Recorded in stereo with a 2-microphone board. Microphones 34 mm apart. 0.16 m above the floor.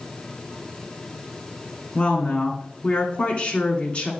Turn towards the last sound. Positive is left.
turn(degrees=35)  # may be behind; listen again after turning